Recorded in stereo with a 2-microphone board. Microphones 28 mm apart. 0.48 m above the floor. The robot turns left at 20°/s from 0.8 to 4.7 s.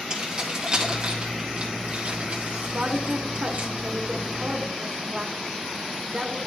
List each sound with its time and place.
0.1 s keys jangling: 25° right (ahead or behind), 2.5 m; by 3.7 s 75° right (ahead or behind), 2.5 m
2.7 s a woman speaking: 105° right, 1.3 m; by 6.5 s 145° right, 1.3 m